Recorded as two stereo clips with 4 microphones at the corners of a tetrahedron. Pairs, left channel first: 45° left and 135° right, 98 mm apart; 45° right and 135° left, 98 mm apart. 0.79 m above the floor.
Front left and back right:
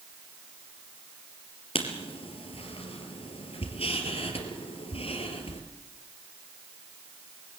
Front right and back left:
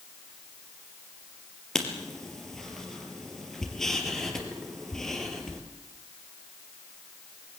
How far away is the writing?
About 3.5 m.